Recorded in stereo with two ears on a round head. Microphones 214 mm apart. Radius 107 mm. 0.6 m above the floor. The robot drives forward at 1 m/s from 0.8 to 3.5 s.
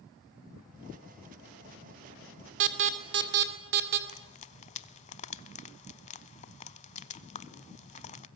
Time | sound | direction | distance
2.6 | an alarm | 55° right (ahead or behind) | 2.5 m
4.1 | frying | 30° left (ahead or behind) | 0.7 m